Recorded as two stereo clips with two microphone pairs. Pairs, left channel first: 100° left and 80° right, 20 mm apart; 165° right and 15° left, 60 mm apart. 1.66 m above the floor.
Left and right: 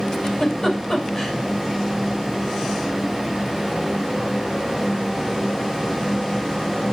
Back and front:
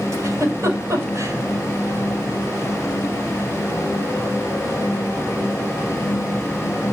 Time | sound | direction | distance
0.1 | a giggle | 45° left | 8.5 m